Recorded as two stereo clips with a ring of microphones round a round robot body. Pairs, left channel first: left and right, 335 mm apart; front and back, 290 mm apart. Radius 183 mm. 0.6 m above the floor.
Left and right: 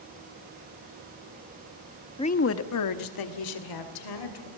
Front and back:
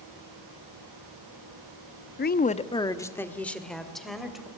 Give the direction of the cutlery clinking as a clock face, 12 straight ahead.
I don't hear cutlery clinking.